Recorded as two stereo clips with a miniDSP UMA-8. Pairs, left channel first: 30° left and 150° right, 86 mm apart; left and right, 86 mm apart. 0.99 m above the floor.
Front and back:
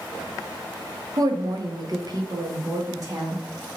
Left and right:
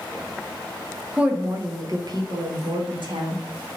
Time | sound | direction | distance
1.2 | a woman speaking | 165° right | 0.6 m